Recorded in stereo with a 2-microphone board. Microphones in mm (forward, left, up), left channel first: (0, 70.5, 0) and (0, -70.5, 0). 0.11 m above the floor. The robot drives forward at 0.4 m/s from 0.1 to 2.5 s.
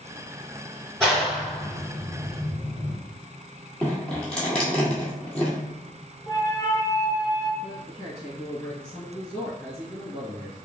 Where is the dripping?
10° left (ahead or behind), 1.3 m.